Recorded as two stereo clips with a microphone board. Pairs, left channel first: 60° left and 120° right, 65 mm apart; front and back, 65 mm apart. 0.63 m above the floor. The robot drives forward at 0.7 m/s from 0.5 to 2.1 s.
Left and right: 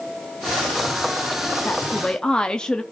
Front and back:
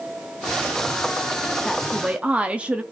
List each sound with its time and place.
1.6 s a woman speaking: 70° left, 0.6 m; by 2.8 s 125° left, 0.6 m